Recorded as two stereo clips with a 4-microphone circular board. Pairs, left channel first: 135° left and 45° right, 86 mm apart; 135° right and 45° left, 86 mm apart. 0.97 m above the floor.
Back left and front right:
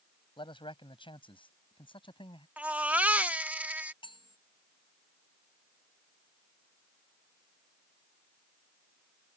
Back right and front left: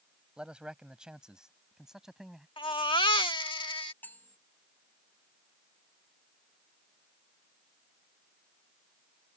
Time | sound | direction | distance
0.4 | a man speaking | 125° left | ?
2.6 | a baby crying | 115° right | ?
4.0 | cutlery clinking | 155° left | ?